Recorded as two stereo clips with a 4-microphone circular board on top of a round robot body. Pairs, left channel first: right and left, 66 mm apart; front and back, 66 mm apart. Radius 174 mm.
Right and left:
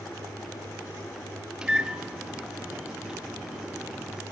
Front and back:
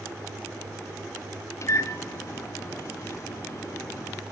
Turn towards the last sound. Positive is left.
turn(degrees=15)